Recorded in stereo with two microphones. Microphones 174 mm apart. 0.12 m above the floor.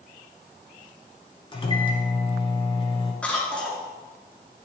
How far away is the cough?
About 1.7 m.